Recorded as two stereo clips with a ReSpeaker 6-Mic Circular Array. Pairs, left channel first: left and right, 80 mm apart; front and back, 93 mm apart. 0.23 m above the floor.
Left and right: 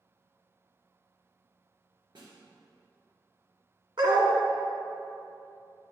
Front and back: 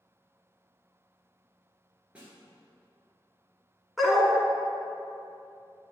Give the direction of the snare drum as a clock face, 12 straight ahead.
3 o'clock.